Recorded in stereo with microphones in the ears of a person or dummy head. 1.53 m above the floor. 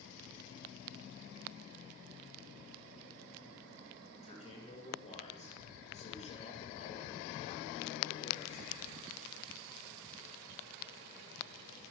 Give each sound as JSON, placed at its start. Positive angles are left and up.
{"t": 4.1, "sound": "a man speaking", "side_deg": 35, "distance_m": 8.0}